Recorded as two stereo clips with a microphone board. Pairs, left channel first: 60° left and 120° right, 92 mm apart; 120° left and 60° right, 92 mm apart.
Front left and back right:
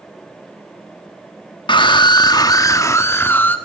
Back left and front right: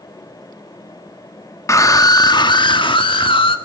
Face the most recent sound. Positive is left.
turn(degrees=130)